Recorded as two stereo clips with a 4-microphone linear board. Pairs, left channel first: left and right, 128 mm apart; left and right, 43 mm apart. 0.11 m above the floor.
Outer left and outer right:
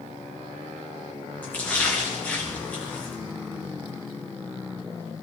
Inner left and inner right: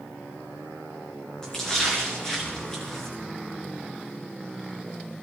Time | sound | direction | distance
1.4 | a splash | 15° left (ahead or behind) | 3.5 m